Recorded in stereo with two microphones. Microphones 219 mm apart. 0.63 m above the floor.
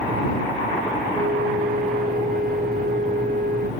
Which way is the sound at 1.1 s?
45° right (ahead or behind).